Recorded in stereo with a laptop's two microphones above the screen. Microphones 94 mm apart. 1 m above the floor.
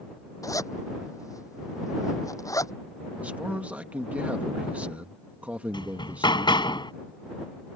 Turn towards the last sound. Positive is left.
turn(degrees=55)  # may be behind; listen again after turning